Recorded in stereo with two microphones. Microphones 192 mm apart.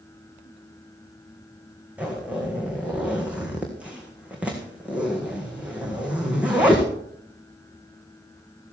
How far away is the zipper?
About 3.5 m.